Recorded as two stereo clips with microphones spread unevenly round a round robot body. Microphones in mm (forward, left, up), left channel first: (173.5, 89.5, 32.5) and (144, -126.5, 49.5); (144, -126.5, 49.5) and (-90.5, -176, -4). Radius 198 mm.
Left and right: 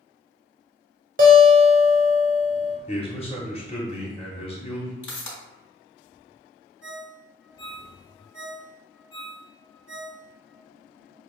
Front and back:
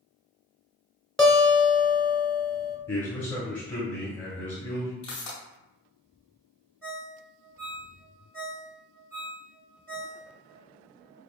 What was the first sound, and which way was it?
A guitar, 90° right.